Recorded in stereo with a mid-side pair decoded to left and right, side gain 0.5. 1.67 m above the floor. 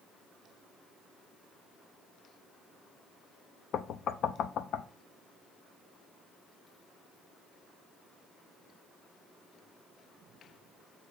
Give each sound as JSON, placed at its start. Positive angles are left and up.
{"t": 3.7, "sound": "knocking", "azimuth_deg": 60, "distance_m": 0.6}